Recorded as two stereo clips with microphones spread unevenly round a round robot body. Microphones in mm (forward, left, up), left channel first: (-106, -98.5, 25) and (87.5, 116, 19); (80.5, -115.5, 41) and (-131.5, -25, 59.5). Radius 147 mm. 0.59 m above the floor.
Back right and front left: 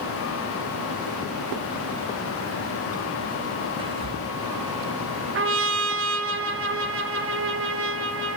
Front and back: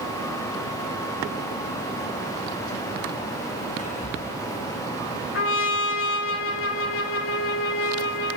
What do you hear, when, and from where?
3.8 s whispering: 10° right, 0.7 m
5.3 s a trumpet: straight ahead, 0.6 m